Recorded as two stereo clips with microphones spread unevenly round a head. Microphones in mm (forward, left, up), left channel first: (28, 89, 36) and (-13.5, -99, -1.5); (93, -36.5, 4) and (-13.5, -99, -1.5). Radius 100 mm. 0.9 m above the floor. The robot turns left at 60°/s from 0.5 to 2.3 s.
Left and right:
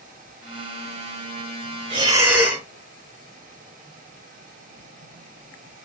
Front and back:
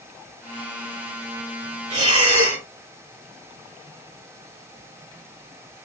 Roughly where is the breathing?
Behind.